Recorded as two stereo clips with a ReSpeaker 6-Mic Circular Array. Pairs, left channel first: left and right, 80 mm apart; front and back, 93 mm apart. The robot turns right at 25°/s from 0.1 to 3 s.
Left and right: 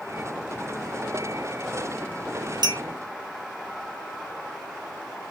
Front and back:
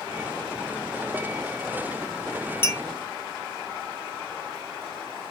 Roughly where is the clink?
Ahead right.